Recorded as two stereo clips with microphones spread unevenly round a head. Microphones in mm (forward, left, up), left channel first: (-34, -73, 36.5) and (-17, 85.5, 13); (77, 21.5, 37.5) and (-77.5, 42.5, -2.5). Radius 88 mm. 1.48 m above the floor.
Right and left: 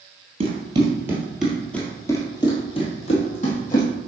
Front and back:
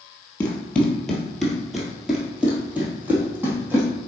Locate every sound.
0.4 s running footsteps: 35° left, 1.6 m; by 3.9 s 100° right, 2.5 m